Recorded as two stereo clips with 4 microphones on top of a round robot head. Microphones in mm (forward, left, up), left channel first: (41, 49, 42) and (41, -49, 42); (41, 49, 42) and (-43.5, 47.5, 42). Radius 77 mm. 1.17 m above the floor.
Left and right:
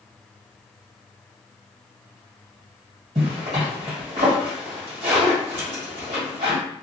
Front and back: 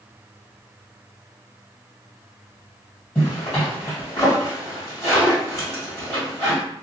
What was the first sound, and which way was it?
A zipper, 90° right.